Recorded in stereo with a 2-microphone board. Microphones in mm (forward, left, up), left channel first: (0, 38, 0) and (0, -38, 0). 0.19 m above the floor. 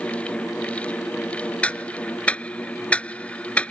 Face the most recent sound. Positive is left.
turn(degrees=20)  # may be behind; listen again after turning